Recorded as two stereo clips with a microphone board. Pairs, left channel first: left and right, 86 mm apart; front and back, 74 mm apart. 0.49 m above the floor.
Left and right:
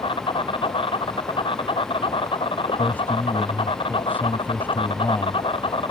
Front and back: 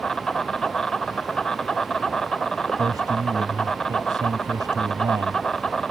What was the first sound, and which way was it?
An insect, 85° left.